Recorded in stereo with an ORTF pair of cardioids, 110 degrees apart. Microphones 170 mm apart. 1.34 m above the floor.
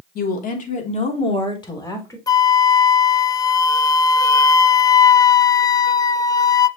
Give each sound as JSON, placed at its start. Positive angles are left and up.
{"t": 0.1, "sound": "a woman speaking", "azimuth_deg": 65, "distance_m": 3.0}
{"t": 2.3, "sound": "a flute", "azimuth_deg": 20, "distance_m": 0.5}